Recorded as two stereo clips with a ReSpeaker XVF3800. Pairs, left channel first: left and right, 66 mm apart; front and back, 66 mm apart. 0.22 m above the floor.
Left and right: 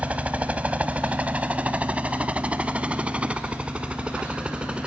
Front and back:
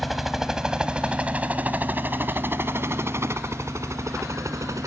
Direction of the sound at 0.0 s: 90° right.